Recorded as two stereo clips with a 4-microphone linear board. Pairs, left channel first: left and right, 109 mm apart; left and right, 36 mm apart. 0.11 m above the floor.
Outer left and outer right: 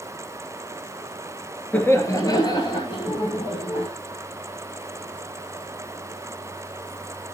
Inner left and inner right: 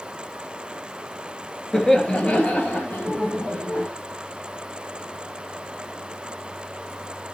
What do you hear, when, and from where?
1.7 s laughter: 15° left (ahead or behind), 1.4 m; by 3.9 s 60° left (ahead or behind), 3 m